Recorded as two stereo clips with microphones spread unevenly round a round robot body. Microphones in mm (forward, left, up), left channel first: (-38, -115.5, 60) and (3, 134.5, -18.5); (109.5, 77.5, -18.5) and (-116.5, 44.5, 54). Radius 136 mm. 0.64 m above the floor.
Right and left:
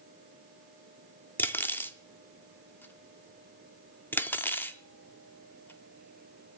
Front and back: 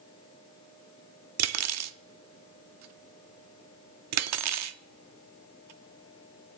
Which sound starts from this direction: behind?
Cutlery clinking, at 1.4 s.